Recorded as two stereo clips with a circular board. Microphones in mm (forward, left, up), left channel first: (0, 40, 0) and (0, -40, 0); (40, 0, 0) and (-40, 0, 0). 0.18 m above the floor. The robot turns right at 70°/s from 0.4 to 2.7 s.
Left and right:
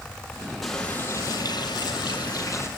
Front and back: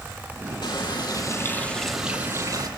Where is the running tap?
Straight ahead, 3.5 m; by 2.7 s 145° left, 3.5 m.